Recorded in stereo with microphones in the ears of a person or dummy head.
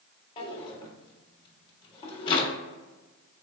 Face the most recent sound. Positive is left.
turn(degrees=30)  # may be behind; listen again after turning